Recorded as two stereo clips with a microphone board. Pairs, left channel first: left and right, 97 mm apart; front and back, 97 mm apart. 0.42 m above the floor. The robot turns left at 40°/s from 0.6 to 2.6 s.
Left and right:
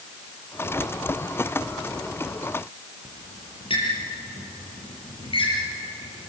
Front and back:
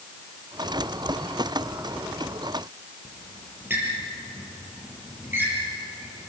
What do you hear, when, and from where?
3.0 s a squeak: 115° left, 7.5 m